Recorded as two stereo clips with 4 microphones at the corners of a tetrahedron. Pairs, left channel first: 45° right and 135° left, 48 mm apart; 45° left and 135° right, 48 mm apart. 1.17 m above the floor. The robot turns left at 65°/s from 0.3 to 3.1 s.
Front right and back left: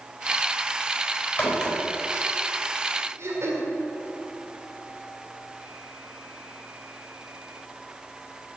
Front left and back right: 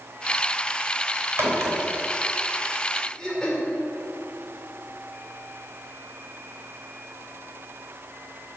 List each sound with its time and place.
1.4 s a crack: 100° right, 3.5 m; by 1.8 s 125° right, 3.5 m
3.2 s throat clearing: 115° left, 2.5 m